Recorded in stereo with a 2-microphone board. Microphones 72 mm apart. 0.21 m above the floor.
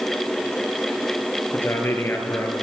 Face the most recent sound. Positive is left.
turn(degrees=35)  # may be behind; listen again after turning